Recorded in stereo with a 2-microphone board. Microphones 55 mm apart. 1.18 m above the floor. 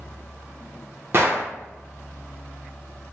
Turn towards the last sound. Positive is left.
turn(degrees=-45)  # may be behind; listen again after turning